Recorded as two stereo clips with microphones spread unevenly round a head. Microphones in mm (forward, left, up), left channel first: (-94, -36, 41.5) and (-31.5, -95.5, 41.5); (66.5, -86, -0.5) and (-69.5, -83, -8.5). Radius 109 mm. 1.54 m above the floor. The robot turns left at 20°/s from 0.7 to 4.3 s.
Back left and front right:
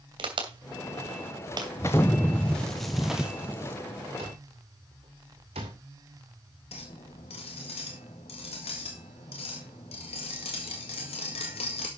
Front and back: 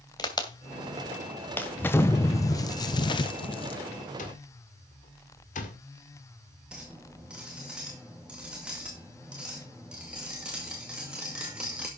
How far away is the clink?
About 1.8 m.